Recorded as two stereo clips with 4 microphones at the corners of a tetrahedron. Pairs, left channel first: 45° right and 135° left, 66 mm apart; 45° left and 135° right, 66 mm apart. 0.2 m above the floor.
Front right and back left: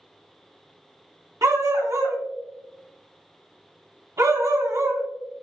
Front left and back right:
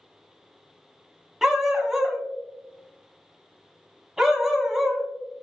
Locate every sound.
1.4 s a dog barking: 145° left, 0.6 m